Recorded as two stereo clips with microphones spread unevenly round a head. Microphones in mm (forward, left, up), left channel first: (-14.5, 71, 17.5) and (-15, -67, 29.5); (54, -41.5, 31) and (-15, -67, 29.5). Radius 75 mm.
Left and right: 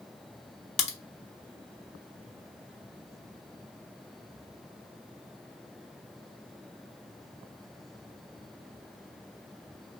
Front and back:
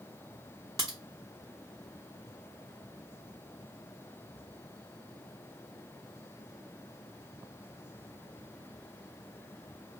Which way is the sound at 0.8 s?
130° left.